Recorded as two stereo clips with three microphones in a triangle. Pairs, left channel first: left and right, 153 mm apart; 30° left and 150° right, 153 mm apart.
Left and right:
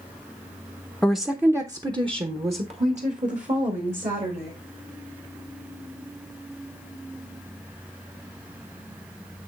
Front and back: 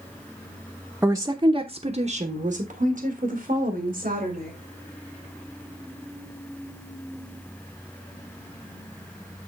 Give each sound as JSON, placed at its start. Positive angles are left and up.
{"t": 1.0, "sound": "a woman speaking", "azimuth_deg": 165, "distance_m": 0.7}